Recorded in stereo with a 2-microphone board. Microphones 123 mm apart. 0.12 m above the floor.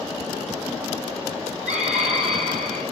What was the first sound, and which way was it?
A scream, 5° right (ahead or behind).